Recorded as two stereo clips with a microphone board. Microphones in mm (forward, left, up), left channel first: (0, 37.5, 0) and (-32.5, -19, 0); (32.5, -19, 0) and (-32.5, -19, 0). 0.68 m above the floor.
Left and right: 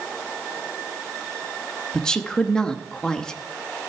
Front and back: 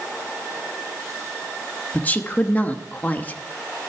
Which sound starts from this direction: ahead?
A woman speaking, at 1.9 s.